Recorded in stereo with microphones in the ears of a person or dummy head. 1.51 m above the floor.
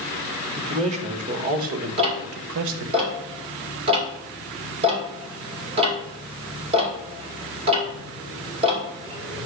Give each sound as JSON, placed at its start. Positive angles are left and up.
{"t": 0.6, "sound": "a man speaking", "side_deg": -30, "distance_m": 1.8}
{"t": 2.0, "sound": "ticking", "side_deg": -30, "distance_m": 2.5}